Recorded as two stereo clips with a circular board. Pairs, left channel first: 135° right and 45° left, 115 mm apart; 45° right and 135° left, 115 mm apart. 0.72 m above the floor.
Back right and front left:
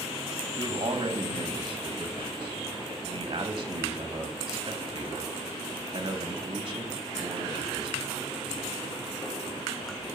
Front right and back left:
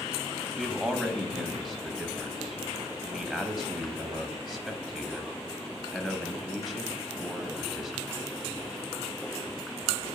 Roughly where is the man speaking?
Ahead left.